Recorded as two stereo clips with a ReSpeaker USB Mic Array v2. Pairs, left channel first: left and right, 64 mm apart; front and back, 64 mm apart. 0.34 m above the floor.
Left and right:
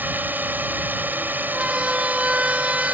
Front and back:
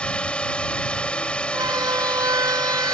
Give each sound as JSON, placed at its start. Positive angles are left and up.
{"t": 0.0, "sound": "a drone", "azimuth_deg": -60}
{"t": 1.5, "sound": "a siren", "azimuth_deg": -165}